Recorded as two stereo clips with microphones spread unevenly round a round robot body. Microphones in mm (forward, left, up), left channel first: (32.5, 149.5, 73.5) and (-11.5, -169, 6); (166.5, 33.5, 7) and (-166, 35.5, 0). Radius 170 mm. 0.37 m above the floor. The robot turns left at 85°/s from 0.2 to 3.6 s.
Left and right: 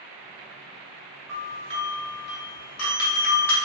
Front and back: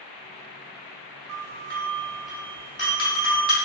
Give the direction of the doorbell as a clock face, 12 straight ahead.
6 o'clock.